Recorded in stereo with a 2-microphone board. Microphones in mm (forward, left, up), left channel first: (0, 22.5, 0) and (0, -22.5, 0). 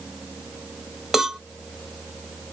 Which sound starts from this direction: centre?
A cowbell, at 1.1 s.